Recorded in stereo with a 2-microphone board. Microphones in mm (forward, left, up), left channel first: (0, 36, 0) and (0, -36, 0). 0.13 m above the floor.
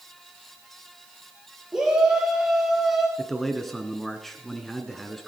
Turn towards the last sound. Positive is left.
turn(degrees=5)  # may be behind; listen again after turning